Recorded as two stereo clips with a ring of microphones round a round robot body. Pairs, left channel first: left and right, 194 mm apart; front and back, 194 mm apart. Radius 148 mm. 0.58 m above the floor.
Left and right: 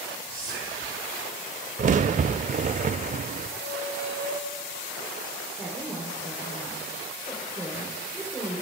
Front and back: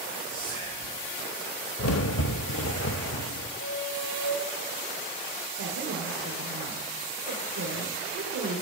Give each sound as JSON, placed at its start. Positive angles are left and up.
{"t": 0.3, "sound": "whispering", "azimuth_deg": 10, "distance_m": 8.0}
{"t": 1.8, "sound": "a crack", "azimuth_deg": -35, "distance_m": 0.5}
{"t": 3.6, "sound": "a squeak", "azimuth_deg": 25, "distance_m": 9.5}
{"t": 5.6, "sound": "a woman speaking", "azimuth_deg": -175, "distance_m": 3.0}